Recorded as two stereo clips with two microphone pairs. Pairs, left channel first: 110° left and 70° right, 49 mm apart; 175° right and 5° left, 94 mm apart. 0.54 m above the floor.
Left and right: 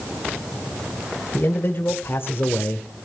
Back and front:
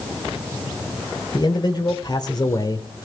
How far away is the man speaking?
About 1.9 m.